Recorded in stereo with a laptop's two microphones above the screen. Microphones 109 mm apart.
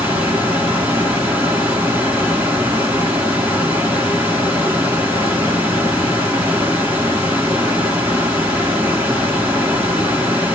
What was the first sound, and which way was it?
A fan, 15° right (ahead or behind).